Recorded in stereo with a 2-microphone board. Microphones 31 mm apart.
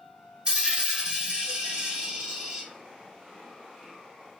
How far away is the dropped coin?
About 0.9 m.